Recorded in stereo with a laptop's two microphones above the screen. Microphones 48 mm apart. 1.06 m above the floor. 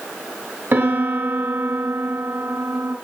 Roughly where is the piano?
Right.